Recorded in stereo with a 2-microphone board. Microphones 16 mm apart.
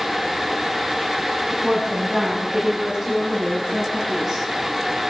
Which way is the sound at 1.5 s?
35° right (ahead or behind).